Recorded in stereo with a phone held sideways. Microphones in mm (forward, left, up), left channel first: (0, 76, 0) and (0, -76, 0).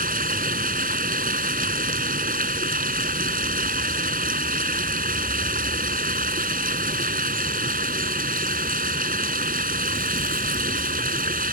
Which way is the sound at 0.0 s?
70° right (ahead or behind).